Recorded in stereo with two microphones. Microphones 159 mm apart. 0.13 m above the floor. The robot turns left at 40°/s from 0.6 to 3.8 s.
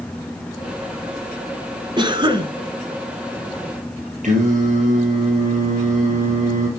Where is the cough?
30° right (ahead or behind), 1.2 m.